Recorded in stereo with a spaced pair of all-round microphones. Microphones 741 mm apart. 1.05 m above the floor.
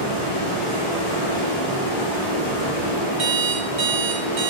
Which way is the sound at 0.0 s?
45° left (ahead or behind).